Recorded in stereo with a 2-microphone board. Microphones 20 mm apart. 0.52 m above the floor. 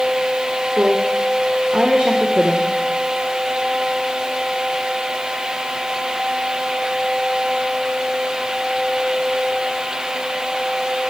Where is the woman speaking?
50° right (ahead or behind), 1.3 m.